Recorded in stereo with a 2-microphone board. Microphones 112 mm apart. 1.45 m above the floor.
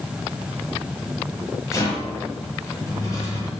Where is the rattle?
30° left (ahead or behind), 5 m.